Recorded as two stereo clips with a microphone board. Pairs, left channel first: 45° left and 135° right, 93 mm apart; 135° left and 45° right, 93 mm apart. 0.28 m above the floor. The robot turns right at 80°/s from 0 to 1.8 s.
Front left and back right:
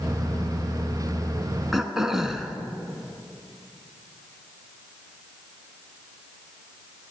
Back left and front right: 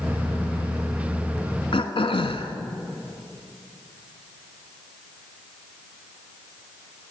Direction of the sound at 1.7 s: 135° left.